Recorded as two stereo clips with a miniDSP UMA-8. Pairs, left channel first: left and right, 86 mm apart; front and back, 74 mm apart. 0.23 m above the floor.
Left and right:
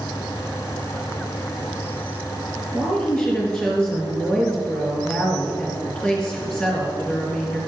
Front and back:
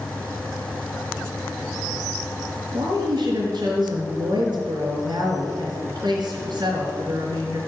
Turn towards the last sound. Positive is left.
turn(degrees=160)